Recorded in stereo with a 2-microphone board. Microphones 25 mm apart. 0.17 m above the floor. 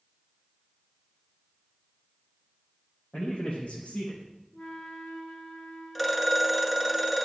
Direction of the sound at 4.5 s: 55° left (ahead or behind).